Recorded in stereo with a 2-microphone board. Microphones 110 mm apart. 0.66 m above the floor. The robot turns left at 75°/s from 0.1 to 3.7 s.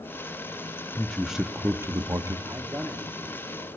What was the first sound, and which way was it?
A man speaking, 20° left.